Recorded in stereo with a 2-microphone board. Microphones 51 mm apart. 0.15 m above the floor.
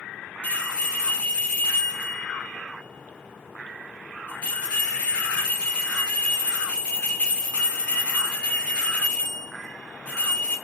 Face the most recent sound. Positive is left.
turn(degrees=20)  # may be behind; listen again after turning